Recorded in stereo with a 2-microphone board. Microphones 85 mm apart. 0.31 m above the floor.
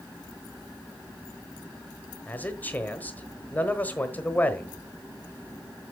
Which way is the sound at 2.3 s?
20° left (ahead or behind).